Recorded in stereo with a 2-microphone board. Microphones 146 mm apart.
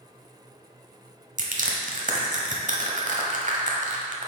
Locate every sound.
1.4 s crushing: 60° right (ahead or behind), 0.9 m